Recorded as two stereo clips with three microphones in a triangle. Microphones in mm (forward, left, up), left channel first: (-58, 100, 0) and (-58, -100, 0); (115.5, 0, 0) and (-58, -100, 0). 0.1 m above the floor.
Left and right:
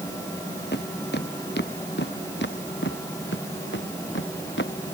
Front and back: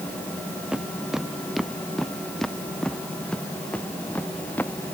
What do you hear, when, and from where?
0.7 s footsteps: 125° left; by 4.9 s 110° left